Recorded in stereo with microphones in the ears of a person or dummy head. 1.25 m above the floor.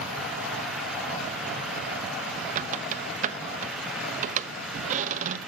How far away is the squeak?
About 0.8 m.